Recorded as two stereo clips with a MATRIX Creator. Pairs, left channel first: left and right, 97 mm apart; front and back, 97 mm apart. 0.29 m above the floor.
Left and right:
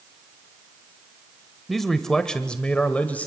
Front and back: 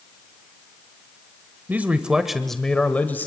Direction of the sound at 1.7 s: 175° left.